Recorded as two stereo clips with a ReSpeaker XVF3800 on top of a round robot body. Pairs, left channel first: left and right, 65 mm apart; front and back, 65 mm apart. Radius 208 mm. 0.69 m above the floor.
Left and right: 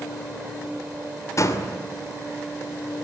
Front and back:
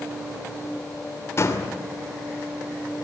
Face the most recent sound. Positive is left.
turn(degrees=50)